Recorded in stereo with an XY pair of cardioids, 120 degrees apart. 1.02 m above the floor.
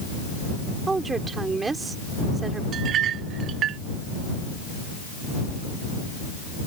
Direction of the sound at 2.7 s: 60° right.